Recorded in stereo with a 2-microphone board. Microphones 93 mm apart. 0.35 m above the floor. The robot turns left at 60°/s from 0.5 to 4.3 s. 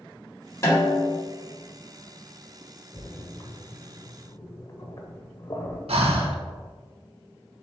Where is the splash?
25° left (ahead or behind), 0.5 m; by 5.8 s 40° left (ahead or behind), 0.5 m.